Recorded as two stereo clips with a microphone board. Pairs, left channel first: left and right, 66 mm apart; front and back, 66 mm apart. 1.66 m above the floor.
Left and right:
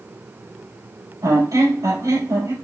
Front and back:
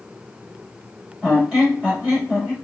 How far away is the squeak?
About 3.5 m.